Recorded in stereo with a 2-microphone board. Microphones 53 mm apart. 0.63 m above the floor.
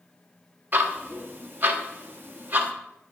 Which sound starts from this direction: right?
Ticking, at 0.7 s.